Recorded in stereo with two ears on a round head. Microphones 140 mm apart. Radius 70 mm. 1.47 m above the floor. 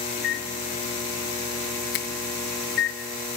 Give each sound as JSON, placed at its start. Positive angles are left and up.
{"t": 0.2, "sound": "a microwave", "side_deg": 80, "distance_m": 2.5}
{"t": 1.9, "sound": "a finger snap", "side_deg": 80, "distance_m": 2.0}